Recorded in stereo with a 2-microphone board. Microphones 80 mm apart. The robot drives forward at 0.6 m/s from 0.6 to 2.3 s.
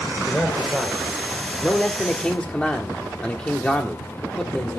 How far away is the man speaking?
About 2.0 m.